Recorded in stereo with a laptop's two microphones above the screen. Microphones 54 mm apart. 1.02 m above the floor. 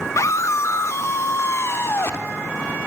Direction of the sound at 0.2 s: 65° left (ahead or behind).